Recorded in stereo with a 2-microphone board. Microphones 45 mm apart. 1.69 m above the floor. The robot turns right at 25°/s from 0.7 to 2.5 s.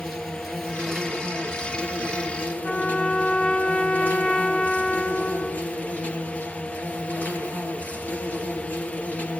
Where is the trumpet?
20° left (ahead or behind), 0.9 m.